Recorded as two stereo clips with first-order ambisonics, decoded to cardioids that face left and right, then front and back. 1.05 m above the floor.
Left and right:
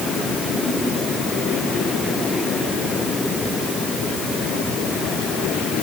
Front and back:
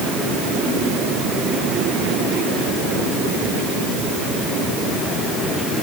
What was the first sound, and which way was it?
Only background noise.